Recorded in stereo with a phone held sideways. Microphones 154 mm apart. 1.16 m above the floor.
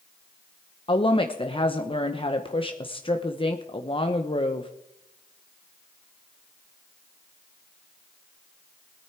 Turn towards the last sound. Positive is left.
turn(degrees=35)  # may be behind; listen again after turning